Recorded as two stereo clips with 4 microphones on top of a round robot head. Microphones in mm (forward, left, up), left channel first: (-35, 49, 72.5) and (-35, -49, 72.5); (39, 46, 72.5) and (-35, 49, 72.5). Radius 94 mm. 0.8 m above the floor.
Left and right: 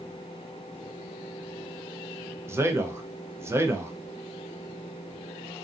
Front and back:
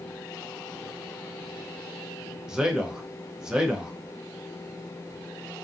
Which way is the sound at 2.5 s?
110° right.